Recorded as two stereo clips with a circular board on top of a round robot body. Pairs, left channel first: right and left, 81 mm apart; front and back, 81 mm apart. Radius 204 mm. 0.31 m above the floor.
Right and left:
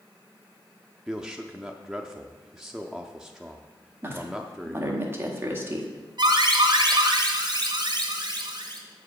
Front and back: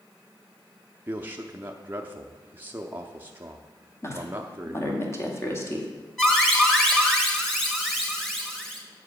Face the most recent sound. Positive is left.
turn(degrees=85)